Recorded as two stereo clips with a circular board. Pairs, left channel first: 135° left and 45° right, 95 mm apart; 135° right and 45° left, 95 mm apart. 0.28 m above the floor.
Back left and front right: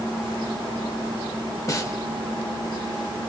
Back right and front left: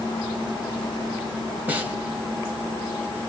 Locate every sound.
1.7 s a snare drum: 110° left, 0.8 m